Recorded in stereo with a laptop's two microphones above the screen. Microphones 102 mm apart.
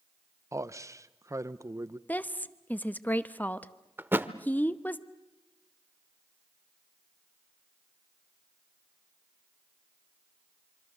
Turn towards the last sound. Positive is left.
turn(degrees=-20)  # may be behind; listen again after turning